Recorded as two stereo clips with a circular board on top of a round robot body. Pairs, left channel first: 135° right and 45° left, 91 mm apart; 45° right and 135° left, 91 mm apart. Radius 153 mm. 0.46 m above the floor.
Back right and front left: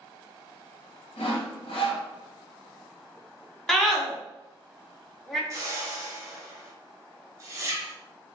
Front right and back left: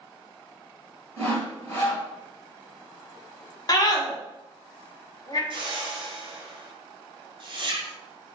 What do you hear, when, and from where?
1.2 s sawing: 110° right, 0.8 m
3.7 s a scream: 50° right, 1.0 m
5.5 s a whoosh: 100° left, 0.8 m